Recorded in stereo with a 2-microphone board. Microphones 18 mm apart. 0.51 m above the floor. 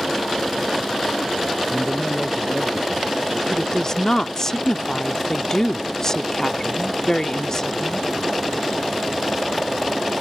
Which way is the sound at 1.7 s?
5° right (ahead or behind).